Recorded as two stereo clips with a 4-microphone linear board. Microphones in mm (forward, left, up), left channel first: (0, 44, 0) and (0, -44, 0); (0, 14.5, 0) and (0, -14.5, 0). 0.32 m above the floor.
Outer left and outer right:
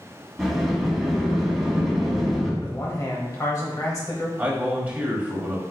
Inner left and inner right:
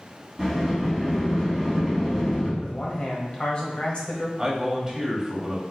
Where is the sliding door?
Centre (ahead or behind), 1.8 m.